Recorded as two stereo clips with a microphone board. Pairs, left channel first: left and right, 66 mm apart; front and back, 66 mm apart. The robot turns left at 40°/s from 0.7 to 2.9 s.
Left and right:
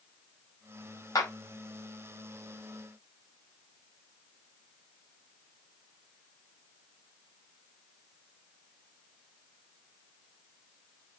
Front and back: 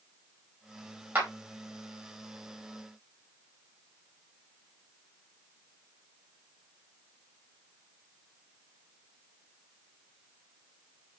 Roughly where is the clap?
Behind left.